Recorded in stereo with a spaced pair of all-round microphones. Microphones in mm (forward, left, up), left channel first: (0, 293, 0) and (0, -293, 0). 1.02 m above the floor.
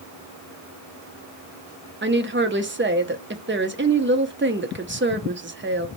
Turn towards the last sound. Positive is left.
turn(degrees=-20)  # may be behind; listen again after turning